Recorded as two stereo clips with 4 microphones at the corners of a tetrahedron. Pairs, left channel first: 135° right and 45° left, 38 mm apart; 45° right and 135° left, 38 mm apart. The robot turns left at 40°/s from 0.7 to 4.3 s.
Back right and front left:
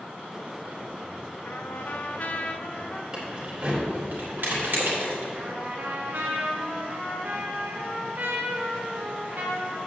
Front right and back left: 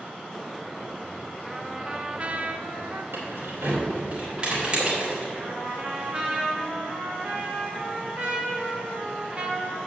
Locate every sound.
1.4 s a trumpet: 145° right, 0.6 m; by 3.0 s 150° left, 0.6 m
3.1 s keys jangling: 120° left, 3 m; by 5.2 s 75° left, 3 m
5.3 s a trumpet: 75° left, 1.4 m